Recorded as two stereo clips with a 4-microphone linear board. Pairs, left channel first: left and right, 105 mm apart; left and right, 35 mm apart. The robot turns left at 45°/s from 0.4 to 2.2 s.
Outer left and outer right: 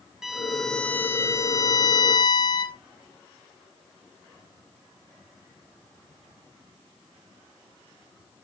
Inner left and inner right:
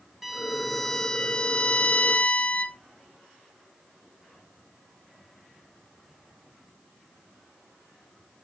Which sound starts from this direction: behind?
A violin, at 0.2 s.